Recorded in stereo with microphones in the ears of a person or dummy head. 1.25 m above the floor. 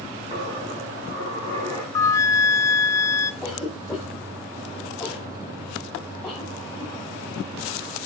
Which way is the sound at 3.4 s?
5° left (ahead or behind).